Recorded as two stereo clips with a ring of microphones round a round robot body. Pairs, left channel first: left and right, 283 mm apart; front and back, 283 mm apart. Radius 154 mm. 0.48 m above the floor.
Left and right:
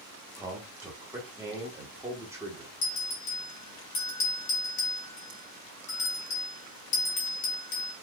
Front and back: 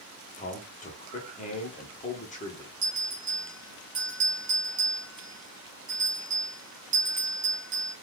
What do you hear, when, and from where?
0.4 s a man speaking: 20° right, 0.9 m
2.8 s a bell: 115° left, 1.6 m